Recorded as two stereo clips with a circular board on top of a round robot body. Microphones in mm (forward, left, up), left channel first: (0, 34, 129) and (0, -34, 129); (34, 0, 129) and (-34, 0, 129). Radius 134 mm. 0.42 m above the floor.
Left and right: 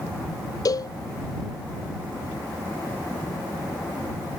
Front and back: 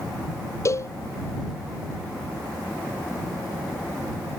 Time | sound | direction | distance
0.7 | a cowbell | 50° left | ?